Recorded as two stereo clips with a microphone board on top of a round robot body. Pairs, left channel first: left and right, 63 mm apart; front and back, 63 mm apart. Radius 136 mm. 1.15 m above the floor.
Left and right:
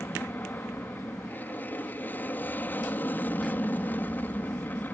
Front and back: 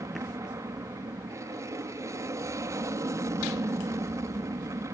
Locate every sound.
0.0 s an aircraft: 150° left